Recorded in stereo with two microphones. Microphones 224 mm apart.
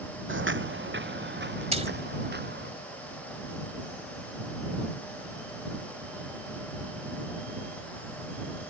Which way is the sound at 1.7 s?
30° right (ahead or behind).